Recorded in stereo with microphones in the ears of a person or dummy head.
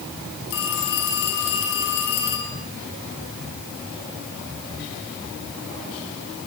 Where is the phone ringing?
70° left (ahead or behind), 6 m.